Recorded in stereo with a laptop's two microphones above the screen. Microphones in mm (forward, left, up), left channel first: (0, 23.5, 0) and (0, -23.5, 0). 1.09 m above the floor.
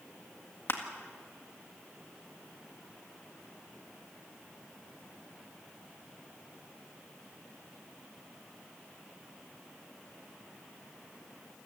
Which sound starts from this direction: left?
Crushing, at 0.7 s.